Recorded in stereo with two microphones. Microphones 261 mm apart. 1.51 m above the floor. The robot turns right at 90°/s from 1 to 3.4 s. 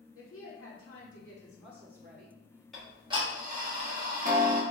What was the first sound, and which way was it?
A woman speaking, 120° left.